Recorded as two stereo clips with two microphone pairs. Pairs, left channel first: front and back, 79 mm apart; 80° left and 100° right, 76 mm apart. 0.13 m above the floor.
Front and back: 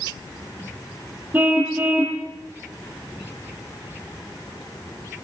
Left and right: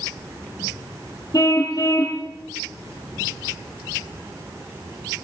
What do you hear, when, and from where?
1.3 s a car horn: 115° left, 2.5 m